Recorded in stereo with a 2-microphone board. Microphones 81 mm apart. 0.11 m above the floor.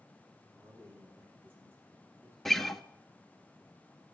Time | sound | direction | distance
0.5 | a man speaking | 30° right (ahead or behind) | 7 m
2.5 | a guitar | 5° left (ahead or behind) | 0.7 m